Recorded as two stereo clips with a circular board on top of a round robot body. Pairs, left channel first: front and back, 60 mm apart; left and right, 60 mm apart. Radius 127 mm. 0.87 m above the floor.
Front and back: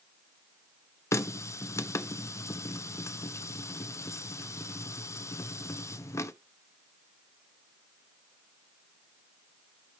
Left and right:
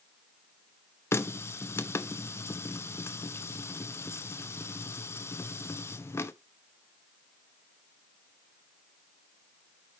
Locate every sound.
1.1 s a running tap: 40° left, 0.8 m